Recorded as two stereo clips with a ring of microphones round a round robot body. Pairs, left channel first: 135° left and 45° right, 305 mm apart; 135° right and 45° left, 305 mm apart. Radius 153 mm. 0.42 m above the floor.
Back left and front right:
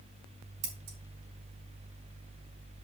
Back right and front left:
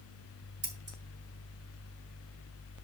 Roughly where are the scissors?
Ahead.